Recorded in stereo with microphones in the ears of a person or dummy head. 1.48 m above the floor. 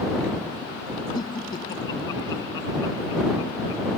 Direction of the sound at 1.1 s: 30° left (ahead or behind).